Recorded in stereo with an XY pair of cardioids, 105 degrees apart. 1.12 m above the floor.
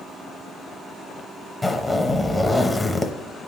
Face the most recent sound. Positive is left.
turn(degrees=15)